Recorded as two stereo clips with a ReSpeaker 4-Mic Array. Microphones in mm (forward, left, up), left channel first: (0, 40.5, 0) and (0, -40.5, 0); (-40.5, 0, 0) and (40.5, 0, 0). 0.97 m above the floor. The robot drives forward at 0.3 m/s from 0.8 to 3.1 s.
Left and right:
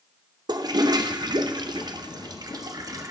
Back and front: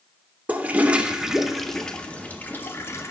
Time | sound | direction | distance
0.5 | a toilet flushing | 70° right | 0.7 m